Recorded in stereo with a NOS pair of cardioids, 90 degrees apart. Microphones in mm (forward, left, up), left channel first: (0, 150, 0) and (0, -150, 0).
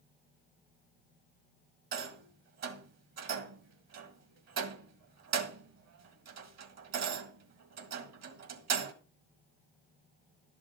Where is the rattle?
60° right, 1.8 m.